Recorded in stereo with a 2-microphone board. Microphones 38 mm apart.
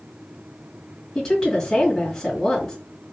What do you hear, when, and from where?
1.1 s a woman speaking: 10° left (ahead or behind), 1.5 m